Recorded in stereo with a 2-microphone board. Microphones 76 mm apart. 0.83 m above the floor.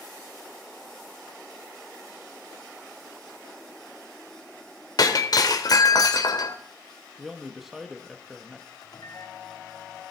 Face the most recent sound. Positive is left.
turn(degrees=50)  # may be behind; listen again after turning